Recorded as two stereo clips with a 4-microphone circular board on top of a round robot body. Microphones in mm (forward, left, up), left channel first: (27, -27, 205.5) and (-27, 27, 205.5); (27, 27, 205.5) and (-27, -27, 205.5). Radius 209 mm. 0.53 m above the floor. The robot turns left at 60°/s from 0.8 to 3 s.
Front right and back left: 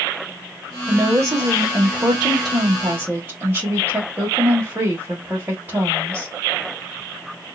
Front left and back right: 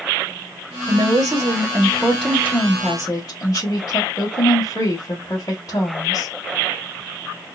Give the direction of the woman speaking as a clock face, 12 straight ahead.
5 o'clock.